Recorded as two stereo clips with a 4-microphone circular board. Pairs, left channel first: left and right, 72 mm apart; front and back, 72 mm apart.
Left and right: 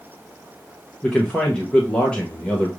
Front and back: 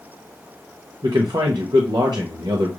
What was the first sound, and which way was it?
A man speaking, 165° left.